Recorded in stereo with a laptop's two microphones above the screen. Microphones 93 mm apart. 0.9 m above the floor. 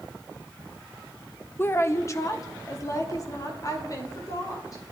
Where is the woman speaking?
25° left (ahead or behind), 0.6 m; by 4.8 s 45° left (ahead or behind), 3.5 m.